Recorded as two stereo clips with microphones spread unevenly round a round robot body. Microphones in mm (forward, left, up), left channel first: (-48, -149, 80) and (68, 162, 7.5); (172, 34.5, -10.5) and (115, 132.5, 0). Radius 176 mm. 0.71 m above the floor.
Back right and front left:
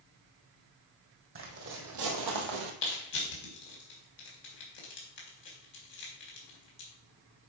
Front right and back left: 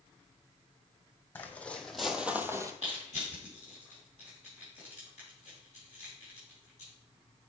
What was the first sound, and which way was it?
Footsteps, 15° left.